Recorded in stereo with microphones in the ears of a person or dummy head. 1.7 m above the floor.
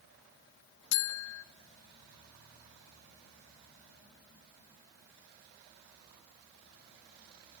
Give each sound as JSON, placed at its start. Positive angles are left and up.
{"t": 0.9, "sound": "a buzzer", "side_deg": 75, "distance_m": 1.0}